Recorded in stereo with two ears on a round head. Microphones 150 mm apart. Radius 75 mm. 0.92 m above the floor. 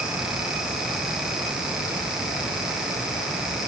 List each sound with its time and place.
Only background noise.